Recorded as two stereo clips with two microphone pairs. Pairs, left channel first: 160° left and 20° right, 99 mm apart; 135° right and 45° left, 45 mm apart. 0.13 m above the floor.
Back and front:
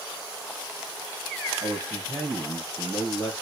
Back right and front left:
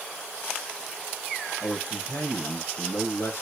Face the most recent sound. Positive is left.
turn(degrees=-145)